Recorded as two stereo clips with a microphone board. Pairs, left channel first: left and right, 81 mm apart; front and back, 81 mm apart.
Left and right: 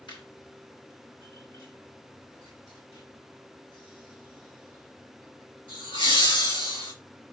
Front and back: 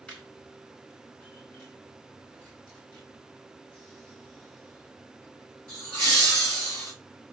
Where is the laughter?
75° left, 2.5 m; by 6.9 s 80° left, 6 m.